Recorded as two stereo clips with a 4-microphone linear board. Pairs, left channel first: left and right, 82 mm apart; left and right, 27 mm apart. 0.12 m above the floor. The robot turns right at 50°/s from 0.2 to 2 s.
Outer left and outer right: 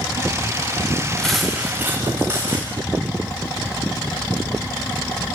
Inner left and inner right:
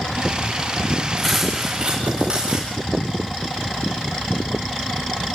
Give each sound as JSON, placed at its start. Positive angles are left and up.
{"t": 1.2, "sound": "cutlery clinking", "azimuth_deg": 170, "distance_m": 7.5}